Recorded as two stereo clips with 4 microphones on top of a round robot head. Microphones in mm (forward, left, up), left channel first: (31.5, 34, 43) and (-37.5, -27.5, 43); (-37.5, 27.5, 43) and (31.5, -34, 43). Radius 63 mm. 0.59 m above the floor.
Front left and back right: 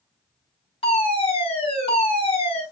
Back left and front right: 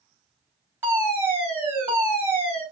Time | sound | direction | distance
0.8 | a fire alarm | 25° left | 7 m